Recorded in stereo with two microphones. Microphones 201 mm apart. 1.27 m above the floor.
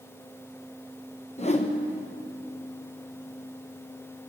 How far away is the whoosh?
About 1.0 m.